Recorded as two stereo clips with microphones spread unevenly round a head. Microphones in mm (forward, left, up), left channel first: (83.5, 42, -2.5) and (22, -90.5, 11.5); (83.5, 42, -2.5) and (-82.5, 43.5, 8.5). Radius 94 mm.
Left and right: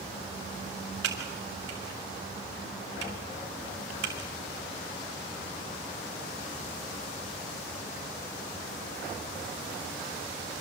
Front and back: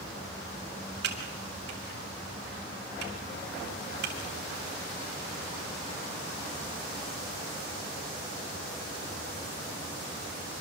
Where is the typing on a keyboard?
140° right, 3 m.